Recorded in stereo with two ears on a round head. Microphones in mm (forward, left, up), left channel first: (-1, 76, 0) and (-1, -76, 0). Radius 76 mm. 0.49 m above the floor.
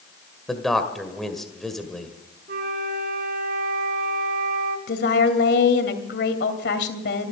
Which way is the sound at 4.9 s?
70° left (ahead or behind).